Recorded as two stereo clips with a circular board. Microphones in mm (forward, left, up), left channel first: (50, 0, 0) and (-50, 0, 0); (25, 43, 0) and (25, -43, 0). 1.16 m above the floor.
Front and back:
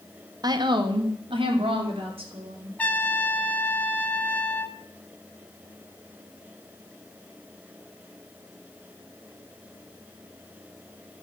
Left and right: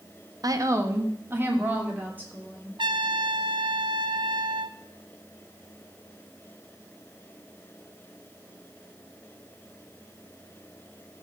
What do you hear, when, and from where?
0.4 s a woman speaking: 130° right, 1.0 m; by 2.7 s 160° right, 4 m
2.8 s a trumpet: 70° right, 0.6 m